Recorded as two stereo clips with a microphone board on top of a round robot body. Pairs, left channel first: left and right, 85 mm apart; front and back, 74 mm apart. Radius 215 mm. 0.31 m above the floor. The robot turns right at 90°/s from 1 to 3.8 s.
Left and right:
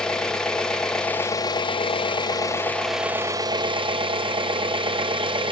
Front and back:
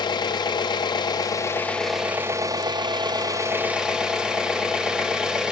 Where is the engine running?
10° left, 1.2 m; by 5.5 s 100° right, 1.2 m.